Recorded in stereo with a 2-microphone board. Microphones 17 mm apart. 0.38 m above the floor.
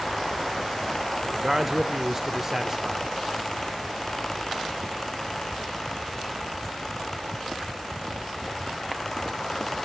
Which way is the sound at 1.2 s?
20° right (ahead or behind).